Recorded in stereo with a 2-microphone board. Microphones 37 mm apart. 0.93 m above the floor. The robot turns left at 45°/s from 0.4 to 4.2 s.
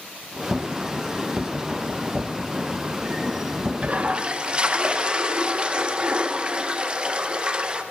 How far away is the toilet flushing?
About 0.6 m.